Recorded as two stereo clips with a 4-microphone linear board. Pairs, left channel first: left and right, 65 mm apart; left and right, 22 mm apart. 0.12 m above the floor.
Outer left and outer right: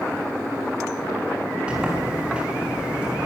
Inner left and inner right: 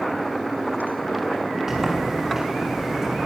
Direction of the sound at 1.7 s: 15° right (ahead or behind).